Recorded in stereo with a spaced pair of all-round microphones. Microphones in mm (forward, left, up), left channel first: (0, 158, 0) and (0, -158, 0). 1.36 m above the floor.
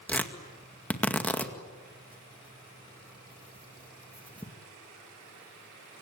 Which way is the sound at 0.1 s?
5° left (ahead or behind).